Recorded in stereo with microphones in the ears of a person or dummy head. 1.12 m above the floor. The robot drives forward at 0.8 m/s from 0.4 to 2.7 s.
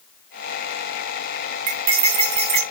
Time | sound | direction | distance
1.7 | cutlery clinking | 40° right (ahead or behind) | 2.5 m